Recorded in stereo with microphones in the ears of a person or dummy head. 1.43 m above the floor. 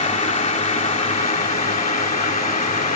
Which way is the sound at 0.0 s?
30° left (ahead or behind).